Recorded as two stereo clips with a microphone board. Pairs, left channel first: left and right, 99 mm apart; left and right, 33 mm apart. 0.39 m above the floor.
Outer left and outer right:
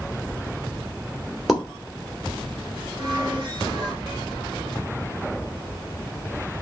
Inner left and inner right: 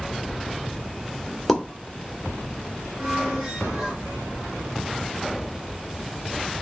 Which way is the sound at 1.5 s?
Centre (ahead or behind).